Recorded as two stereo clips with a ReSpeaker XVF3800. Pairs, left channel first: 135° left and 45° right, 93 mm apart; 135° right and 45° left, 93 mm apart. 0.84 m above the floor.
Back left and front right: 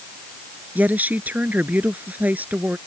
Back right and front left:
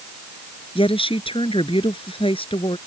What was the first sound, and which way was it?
A woman speaking, 115° right.